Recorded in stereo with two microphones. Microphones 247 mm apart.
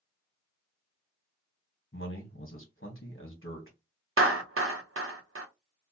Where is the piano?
No piano in this recording.